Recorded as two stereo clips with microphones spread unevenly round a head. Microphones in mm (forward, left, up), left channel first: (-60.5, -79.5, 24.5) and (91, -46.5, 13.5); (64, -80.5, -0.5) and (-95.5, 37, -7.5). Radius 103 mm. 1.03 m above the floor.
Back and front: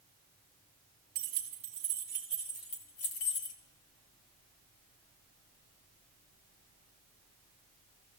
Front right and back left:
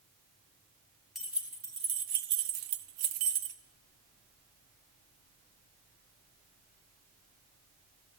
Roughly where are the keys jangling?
Ahead left.